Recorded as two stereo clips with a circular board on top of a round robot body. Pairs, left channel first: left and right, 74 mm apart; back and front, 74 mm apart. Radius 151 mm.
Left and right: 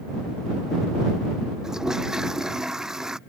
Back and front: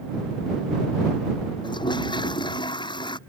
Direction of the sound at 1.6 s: 175° right.